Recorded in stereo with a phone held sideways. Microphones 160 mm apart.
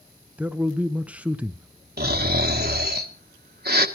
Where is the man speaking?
10° right (ahead or behind), 0.7 m.